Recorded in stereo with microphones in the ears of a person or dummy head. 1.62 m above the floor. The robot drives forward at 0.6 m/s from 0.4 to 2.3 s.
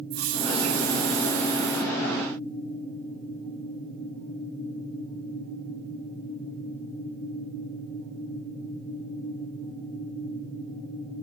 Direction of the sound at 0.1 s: 75° right (ahead or behind).